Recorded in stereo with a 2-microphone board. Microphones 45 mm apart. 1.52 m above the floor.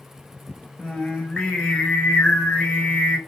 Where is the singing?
20° left (ahead or behind), 1.3 m.